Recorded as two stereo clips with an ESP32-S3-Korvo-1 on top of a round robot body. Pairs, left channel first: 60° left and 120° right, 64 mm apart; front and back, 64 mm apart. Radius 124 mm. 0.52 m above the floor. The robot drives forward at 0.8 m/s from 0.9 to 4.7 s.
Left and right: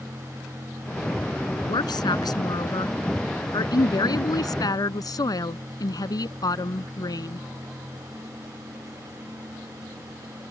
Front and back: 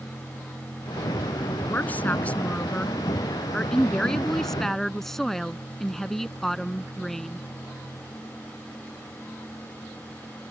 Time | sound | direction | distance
1.7 | a woman speaking | 65° left | ?